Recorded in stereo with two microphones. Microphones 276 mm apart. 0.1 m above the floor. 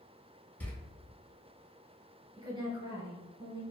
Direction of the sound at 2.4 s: 20° right (ahead or behind).